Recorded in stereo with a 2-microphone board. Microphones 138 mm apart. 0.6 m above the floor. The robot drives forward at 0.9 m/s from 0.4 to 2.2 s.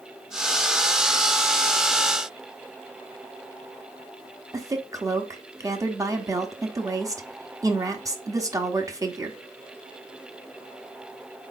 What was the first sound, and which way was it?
A woman speaking, 25° right (ahead or behind).